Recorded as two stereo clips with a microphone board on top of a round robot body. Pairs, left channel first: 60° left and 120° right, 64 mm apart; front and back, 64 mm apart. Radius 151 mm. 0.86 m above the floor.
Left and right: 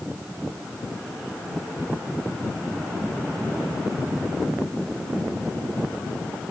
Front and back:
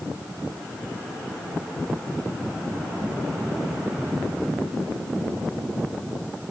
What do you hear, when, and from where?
Only background noise.